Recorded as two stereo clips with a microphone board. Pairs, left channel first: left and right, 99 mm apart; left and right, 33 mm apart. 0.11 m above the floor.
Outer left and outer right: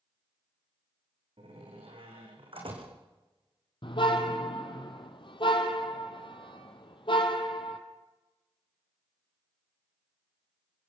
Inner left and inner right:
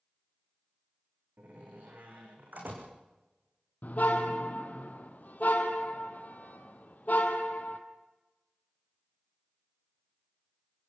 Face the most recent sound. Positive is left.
turn(degrees=60)  # may be behind; listen again after turning